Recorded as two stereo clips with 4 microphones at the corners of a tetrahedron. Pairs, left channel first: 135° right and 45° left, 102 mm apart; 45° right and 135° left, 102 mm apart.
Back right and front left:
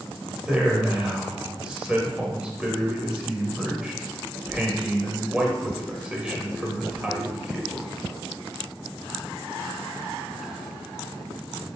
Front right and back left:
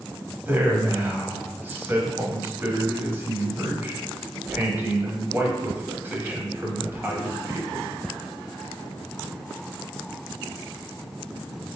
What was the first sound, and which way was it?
A man speaking, 110° left.